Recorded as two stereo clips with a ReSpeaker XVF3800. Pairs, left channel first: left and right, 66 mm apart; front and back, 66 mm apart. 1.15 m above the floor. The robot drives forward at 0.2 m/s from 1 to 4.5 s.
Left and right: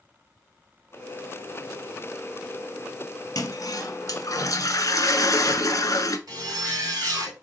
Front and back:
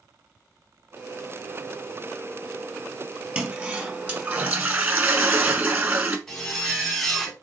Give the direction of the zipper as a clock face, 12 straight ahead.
3 o'clock.